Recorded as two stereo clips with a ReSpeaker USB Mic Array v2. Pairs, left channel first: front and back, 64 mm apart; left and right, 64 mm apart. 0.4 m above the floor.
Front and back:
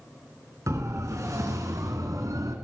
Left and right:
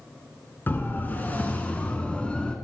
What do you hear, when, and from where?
0.7 s a siren: 145° left, 4.5 m; by 2.6 s 165° left, 4 m